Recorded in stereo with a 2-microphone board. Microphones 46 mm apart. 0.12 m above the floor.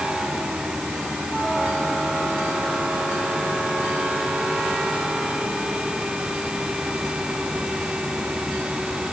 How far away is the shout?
I don't hear a shout.